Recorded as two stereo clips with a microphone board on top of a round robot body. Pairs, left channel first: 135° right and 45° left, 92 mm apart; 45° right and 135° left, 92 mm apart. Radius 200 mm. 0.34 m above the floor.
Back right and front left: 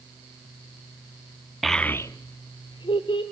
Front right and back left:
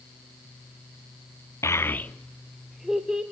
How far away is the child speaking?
About 0.8 m.